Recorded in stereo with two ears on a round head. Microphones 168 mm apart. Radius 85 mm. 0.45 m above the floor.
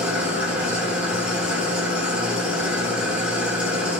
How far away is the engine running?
About 1.9 m.